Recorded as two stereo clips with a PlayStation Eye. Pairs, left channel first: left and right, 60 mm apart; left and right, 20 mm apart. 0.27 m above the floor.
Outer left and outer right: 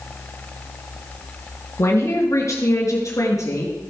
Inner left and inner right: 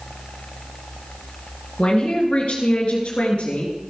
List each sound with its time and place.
1.8 s a man speaking: 50° left (ahead or behind), 4 m; by 3.8 s 65° left (ahead or behind), 5 m